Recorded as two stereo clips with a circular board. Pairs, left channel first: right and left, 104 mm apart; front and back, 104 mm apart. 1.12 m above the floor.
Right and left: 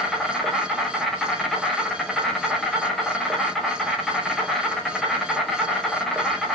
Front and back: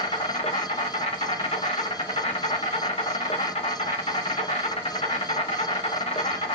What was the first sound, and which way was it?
An insect, straight ahead.